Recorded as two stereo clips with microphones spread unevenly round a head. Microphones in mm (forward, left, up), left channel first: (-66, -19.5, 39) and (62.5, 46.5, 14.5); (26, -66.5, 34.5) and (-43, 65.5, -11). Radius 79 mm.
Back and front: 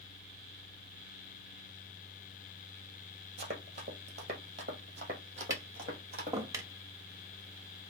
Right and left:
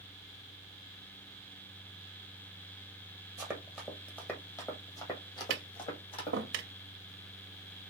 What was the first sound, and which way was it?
Running footsteps, 5° left.